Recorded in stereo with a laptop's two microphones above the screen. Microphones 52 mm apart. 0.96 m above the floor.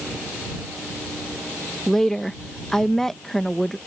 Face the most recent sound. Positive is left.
turn(degrees=10)  # may be behind; listen again after turning